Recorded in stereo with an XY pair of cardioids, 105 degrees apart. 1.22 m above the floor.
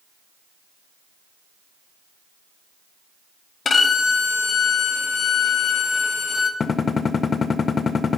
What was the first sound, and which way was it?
A violin, 45° left.